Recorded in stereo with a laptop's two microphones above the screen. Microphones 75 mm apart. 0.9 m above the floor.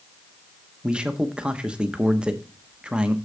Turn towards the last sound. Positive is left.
turn(degrees=-15)  # may be behind; listen again after turning